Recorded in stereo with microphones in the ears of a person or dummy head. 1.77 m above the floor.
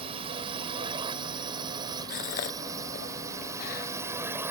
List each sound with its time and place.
0.0 s a drone: 30° right (ahead or behind); by 4.5 s 10° right (ahead or behind)
2.1 s a gasp: 45° left (ahead or behind)